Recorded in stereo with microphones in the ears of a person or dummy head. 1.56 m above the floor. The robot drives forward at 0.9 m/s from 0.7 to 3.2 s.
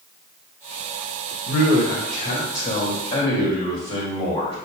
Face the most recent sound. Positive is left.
turn(degrees=35)  # may be behind; listen again after turning